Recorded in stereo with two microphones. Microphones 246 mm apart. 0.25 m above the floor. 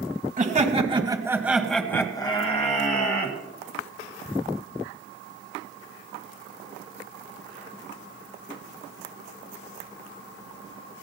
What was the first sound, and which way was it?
Laughter, 35° right (ahead or behind).